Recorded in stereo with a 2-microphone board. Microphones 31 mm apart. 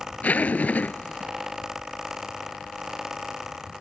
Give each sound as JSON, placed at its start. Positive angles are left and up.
{"t": 0.2, "sound": "a zipper", "side_deg": 60}